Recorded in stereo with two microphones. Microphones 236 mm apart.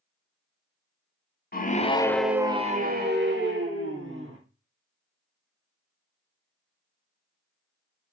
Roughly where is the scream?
Left.